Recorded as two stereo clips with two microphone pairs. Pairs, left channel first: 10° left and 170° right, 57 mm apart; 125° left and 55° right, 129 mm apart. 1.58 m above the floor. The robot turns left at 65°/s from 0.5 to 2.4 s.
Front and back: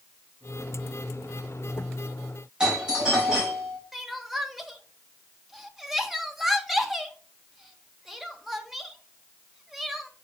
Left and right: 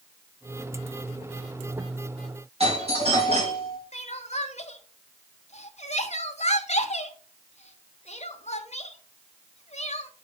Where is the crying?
100° left, 1.0 m.